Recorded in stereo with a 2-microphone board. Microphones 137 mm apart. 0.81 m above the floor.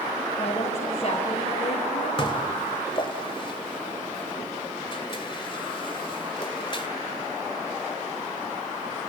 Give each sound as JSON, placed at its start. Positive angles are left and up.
{"t": 0.4, "sound": "a woman speaking", "side_deg": 50, "distance_m": 4.5}
{"t": 2.2, "sound": "dishes clattering", "side_deg": 40, "distance_m": 2.0}